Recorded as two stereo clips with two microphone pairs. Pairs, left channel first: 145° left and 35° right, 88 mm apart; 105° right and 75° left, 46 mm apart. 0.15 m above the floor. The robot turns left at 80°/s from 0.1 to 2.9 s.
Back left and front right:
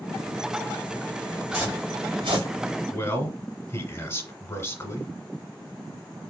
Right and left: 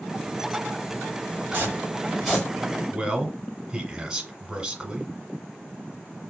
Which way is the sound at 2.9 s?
130° left.